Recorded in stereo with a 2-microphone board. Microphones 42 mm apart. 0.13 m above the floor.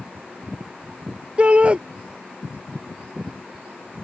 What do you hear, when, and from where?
1.4 s a shout: 30° right (ahead or behind)